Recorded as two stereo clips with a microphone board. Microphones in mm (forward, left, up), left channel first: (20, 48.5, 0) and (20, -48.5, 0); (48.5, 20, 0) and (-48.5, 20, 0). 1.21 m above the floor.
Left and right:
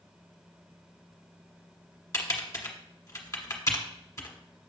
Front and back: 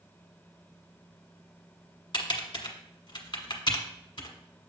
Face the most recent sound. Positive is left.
turn(degrees=30)